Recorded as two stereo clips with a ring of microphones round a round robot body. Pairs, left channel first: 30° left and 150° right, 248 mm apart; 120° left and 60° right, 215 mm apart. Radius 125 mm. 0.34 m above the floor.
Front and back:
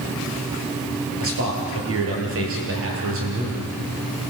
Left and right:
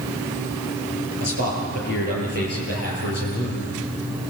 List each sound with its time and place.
1.2 s a man speaking: 170° left, 7.5 m